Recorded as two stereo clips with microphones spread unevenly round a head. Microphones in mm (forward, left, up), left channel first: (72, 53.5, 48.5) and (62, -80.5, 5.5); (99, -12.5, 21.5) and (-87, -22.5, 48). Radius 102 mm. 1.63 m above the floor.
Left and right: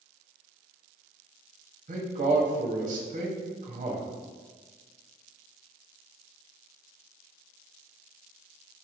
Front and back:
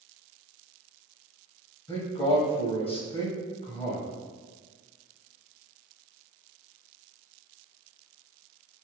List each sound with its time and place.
1.9 s a man speaking: 60° right, 1.1 m